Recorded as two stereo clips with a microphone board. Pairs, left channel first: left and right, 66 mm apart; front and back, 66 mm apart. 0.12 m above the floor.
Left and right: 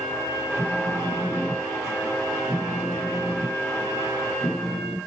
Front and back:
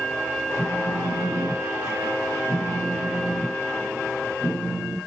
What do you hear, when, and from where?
0.6 s a phone buzzing: 170° left, 1.8 m